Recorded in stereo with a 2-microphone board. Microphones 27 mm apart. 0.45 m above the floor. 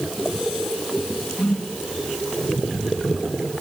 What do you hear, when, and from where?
1.4 s a whoosh: 50° left (ahead or behind), 5 m